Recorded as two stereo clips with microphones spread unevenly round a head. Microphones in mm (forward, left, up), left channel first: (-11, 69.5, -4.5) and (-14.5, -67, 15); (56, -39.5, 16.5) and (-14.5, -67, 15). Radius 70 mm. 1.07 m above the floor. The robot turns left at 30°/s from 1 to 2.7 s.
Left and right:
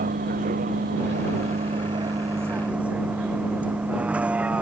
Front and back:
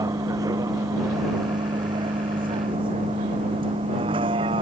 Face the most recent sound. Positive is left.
turn(degrees=-170)